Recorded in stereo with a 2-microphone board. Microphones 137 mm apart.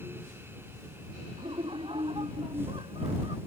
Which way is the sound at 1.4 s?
40° right (ahead or behind).